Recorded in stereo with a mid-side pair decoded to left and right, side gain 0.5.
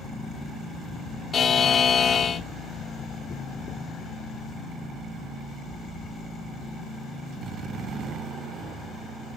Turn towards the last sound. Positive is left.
turn(degrees=40)